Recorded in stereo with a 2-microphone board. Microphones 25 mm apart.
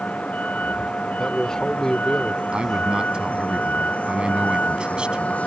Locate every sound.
0.0 s a vehicle: 80° left
1.2 s a man speaking: 25° left (ahead or behind)
2.5 s a man speaking: 50° right (ahead or behind)